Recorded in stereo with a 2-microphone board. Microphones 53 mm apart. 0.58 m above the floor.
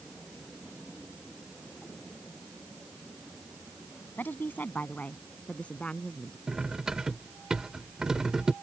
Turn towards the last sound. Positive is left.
turn(degrees=-15)  # may be behind; listen again after turning